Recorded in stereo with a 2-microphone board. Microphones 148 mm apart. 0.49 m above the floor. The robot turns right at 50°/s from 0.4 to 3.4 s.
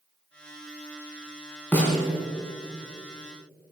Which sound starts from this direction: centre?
A snare drum, at 1.7 s.